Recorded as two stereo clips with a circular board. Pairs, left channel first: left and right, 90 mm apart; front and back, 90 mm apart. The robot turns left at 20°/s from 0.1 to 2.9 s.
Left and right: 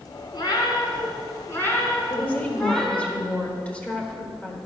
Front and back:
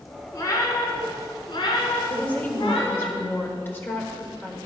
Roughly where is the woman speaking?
Ahead left.